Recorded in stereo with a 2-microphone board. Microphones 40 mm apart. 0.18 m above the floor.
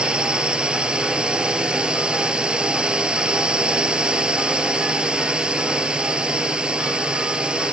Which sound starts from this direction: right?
A drone, at 0.0 s.